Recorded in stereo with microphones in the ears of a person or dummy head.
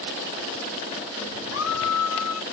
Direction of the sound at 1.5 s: 85° left.